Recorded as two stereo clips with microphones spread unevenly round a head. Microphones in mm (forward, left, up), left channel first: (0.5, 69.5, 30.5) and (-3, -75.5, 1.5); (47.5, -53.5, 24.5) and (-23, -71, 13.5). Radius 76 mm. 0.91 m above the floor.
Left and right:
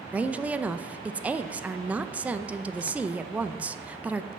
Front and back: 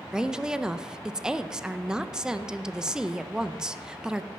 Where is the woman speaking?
125° right, 0.5 m.